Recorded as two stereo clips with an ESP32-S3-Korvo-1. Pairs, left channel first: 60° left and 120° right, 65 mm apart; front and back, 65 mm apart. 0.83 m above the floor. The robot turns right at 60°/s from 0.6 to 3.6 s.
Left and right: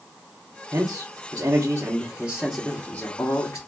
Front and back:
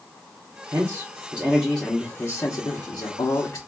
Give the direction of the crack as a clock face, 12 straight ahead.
I don't hear a crack.